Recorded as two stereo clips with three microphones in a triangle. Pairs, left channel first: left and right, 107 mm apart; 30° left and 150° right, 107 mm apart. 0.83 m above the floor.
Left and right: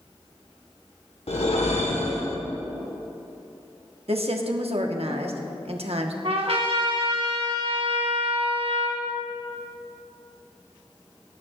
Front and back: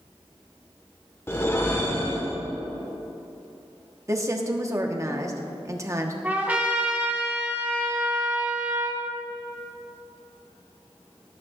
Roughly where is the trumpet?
Right.